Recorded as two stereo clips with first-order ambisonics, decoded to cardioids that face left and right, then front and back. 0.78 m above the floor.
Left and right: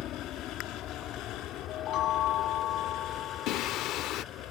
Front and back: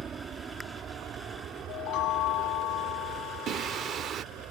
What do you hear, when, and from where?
0.0 s an aircraft: 125° left; by 4.5 s 140° left
1.7 s a chime: 40° left
3.5 s singing: 125° left